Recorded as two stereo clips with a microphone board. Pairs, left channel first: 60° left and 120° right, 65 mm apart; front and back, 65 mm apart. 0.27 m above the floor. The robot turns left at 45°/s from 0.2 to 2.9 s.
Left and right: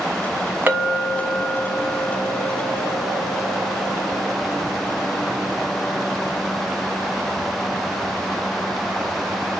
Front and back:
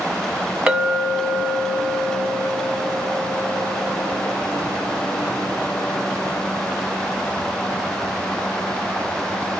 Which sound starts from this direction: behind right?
A clink, at 0.7 s.